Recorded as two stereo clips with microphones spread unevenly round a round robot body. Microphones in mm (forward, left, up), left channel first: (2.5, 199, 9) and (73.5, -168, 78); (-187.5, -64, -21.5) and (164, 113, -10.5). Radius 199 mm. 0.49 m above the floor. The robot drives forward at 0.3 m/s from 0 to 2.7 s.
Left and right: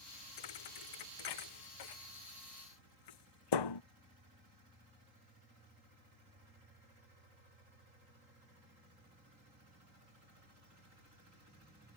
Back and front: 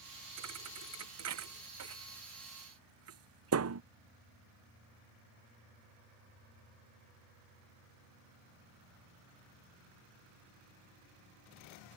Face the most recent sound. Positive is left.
turn(degrees=80)